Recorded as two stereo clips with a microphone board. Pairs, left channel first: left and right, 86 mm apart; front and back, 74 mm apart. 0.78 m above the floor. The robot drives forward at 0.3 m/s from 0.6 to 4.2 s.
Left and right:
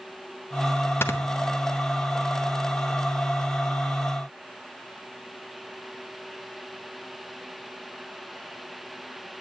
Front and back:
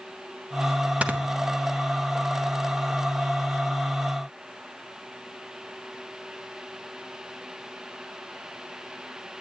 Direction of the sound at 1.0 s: 125° left.